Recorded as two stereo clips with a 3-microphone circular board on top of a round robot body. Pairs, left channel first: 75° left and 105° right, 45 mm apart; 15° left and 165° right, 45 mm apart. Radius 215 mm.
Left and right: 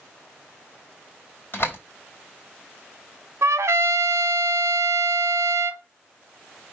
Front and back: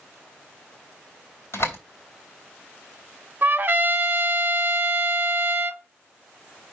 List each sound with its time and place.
1.5 s a door slam: 30° left, 3 m
3.4 s a trumpet: 115° right, 0.9 m